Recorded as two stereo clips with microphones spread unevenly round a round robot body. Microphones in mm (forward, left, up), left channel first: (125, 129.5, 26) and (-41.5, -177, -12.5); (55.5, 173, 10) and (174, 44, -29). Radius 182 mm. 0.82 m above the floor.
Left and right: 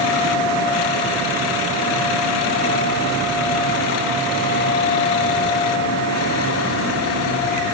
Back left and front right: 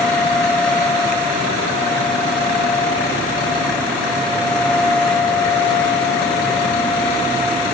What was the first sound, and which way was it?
Only background noise.